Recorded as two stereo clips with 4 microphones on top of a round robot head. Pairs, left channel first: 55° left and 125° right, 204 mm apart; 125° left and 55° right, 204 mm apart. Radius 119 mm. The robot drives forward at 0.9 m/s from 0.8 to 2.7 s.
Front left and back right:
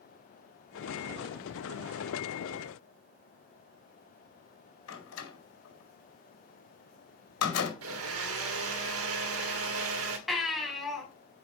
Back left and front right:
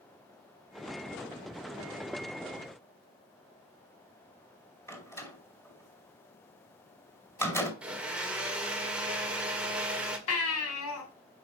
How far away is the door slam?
About 4.5 m.